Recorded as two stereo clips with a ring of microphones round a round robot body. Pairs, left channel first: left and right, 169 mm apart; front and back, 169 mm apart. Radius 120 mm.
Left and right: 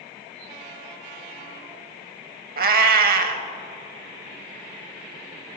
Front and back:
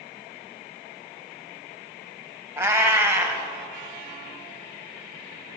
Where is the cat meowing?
105° right, 0.6 m.